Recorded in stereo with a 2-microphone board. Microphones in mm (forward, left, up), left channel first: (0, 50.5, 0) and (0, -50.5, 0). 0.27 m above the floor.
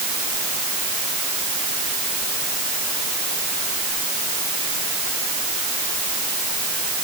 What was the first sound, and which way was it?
Only background noise.